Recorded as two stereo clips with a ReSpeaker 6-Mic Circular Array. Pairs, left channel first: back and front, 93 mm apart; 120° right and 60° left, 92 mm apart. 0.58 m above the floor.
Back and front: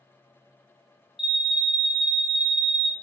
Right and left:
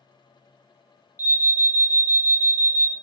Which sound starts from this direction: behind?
An alarm, at 1.2 s.